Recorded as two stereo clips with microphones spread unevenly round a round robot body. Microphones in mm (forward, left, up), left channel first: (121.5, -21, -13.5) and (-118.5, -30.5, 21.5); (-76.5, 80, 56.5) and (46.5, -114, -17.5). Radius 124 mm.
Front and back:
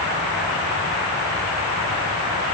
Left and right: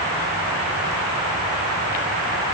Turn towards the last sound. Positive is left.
No sound to turn to.